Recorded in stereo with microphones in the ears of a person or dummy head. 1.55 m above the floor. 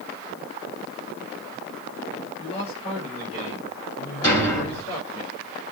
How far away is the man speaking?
About 6.5 m.